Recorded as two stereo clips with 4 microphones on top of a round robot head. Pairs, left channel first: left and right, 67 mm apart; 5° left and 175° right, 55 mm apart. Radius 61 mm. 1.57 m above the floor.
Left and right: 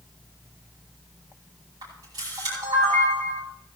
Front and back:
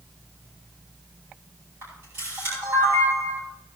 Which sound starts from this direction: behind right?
A camera shutter, at 1.8 s.